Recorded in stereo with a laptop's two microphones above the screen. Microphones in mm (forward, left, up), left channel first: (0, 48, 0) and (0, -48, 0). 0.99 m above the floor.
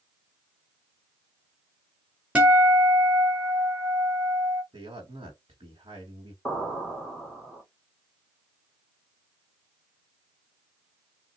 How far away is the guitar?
About 1.4 m.